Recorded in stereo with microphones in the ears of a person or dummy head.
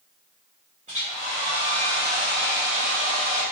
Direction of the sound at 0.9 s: 30° right (ahead or behind).